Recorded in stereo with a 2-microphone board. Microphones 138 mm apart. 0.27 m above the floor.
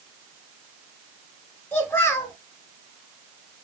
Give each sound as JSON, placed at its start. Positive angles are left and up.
{"t": 1.7, "sound": "a child speaking", "side_deg": 15, "distance_m": 1.0}